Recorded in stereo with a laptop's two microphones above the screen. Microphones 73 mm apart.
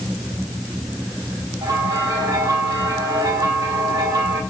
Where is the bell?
65° right (ahead or behind), 4.5 m.